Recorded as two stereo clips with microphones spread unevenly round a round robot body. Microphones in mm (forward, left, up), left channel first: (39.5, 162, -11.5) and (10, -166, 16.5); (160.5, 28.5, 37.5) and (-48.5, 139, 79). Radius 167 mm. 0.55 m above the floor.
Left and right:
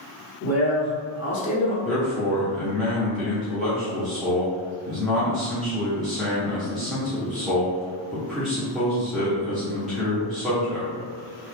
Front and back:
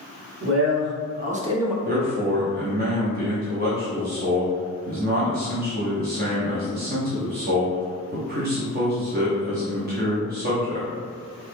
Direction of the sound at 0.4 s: 125° left.